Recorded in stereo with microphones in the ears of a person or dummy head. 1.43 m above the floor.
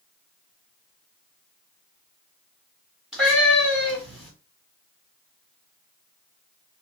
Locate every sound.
3.1 s a cat meowing: 5° right (ahead or behind), 1.8 m